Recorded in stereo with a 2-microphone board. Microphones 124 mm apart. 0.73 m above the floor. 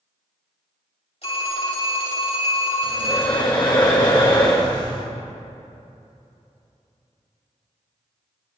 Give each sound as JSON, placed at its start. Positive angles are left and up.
{"t": 1.2, "sound": "a phone ringing", "side_deg": 55, "distance_m": 3.0}
{"t": 2.8, "sound": "breathing", "side_deg": 35, "distance_m": 1.7}